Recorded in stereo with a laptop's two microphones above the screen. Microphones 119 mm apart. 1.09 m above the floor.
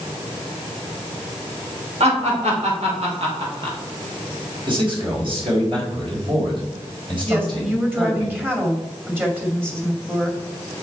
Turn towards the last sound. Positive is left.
turn(degrees=-20)  # may be behind; listen again after turning